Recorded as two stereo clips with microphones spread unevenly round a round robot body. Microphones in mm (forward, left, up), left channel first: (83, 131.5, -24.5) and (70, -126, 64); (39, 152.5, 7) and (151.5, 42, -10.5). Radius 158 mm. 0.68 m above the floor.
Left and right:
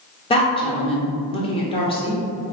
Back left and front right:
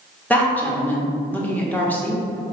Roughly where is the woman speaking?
Ahead left.